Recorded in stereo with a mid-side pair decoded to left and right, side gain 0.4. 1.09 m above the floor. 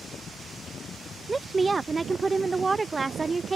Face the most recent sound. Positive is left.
turn(degrees=-30)